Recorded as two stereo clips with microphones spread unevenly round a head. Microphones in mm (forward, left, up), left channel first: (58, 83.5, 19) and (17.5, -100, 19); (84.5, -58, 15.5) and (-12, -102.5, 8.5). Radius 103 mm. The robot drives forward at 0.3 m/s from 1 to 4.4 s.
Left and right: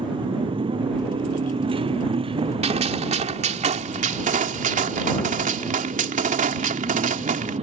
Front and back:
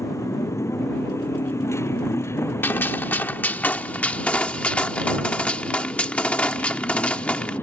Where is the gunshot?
45° right; by 7.6 s 55° right.